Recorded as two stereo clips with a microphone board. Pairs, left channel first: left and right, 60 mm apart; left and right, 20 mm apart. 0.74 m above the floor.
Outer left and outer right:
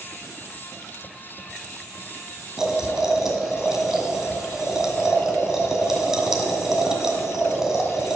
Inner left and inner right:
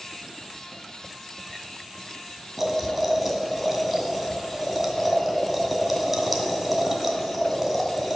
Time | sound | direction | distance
2.6 | boiling | 10° right (ahead or behind) | 1.7 m